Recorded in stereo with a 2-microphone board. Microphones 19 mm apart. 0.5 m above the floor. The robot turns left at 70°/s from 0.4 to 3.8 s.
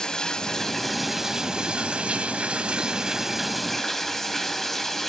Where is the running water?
40° left, 1.5 m; by 5.1 s 160° left, 1.5 m.